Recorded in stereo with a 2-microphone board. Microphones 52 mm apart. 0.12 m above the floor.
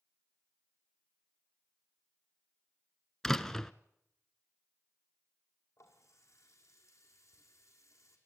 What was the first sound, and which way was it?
A door slam, 5° left (ahead or behind).